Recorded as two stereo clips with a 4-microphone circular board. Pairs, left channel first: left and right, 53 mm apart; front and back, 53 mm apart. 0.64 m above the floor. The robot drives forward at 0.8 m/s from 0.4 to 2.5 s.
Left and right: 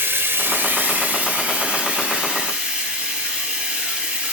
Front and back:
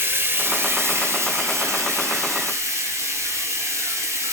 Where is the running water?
135° right, 1.4 m; by 4.3 s 160° right, 3 m.